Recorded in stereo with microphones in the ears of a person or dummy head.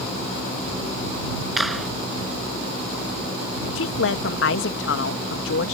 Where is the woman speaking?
70° left (ahead or behind).